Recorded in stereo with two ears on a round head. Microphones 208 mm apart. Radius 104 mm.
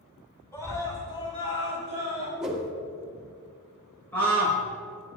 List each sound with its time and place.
0.5 s a scream: 15° left (ahead or behind), 3.5 m; by 2.3 s 30° left (ahead or behind), 5.5 m
2.4 s a whoosh: centre (ahead or behind), 1.9 m
4.1 s a scream: 10° left (ahead or behind), 4.5 m